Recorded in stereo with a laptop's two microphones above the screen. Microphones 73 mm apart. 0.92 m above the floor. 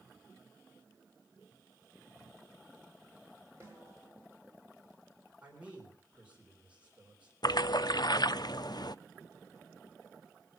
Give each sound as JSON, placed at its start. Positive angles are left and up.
{"t": 3.6, "sound": "a snare drum", "side_deg": -35, "distance_m": 5.5}
{"t": 5.4, "sound": "a man speaking", "side_deg": -20, "distance_m": 3.5}
{"t": 7.4, "sound": "a splash", "side_deg": 65, "distance_m": 0.5}